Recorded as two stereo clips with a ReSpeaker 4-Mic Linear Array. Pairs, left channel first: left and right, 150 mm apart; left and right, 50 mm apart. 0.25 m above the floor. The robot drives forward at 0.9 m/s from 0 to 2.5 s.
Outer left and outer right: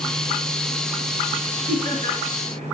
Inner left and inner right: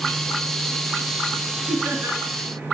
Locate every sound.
1.7 s laughter: 65° right (ahead or behind), 3.5 m